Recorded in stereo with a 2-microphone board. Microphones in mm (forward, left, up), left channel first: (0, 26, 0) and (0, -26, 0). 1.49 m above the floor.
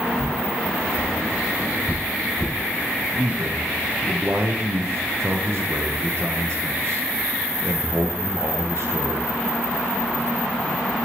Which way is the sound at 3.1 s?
60° right (ahead or behind).